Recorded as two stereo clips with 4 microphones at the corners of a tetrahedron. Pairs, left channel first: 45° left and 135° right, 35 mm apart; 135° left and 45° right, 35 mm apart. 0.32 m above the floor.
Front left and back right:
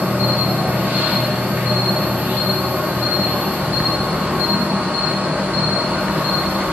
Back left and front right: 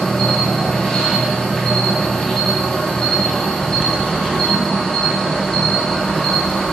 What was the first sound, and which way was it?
An insect, 155° right.